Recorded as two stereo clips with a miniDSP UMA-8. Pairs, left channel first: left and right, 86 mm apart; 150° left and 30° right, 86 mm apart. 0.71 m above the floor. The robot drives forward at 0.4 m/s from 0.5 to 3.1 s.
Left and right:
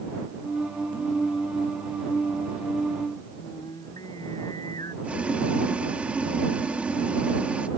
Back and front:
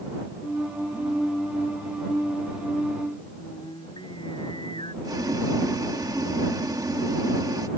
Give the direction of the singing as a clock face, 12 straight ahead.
8 o'clock.